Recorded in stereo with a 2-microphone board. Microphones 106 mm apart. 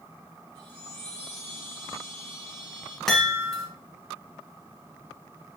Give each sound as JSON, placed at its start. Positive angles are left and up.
{"t": 0.6, "sound": "a chime", "side_deg": -50, "distance_m": 3.0}
{"t": 3.1, "sound": "a chime", "side_deg": 5, "distance_m": 2.0}